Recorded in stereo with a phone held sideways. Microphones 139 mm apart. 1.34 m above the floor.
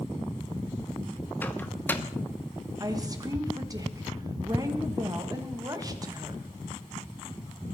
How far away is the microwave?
About 0.9 m.